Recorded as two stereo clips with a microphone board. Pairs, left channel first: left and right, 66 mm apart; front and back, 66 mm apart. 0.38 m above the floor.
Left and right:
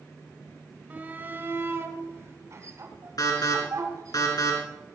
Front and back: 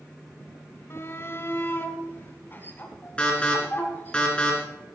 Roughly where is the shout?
Ahead right.